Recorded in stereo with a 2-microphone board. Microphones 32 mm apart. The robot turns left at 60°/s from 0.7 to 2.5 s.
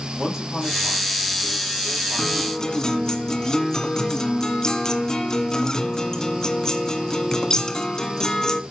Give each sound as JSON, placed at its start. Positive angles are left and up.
{"t": 0.2, "sound": "a man speaking", "azimuth_deg": -10, "distance_m": 8.5}
{"t": 2.2, "sound": "a guitar", "side_deg": 10, "distance_m": 1.5}